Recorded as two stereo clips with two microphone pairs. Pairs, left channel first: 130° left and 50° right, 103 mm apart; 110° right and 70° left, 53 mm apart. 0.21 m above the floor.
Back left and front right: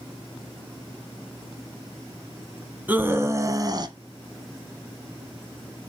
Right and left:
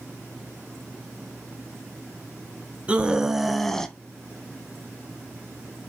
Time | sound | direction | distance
2.9 | a scream | 15° left | 1.4 m